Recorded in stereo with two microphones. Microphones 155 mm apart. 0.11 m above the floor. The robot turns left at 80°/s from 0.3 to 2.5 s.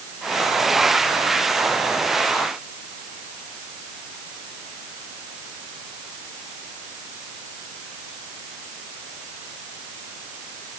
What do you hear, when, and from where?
Only background noise.